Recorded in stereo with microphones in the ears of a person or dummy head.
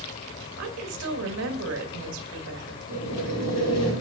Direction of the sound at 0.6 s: 70° right (ahead or behind).